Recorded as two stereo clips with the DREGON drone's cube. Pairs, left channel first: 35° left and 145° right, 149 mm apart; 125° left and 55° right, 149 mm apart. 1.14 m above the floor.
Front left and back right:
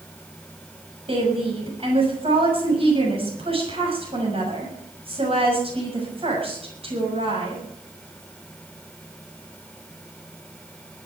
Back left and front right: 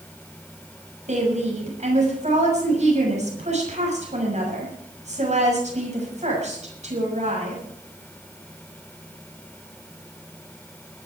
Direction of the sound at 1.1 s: 95° right.